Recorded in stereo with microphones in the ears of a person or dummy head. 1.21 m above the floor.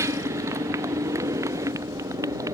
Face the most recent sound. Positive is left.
turn(degrees=-20)  # may be behind; listen again after turning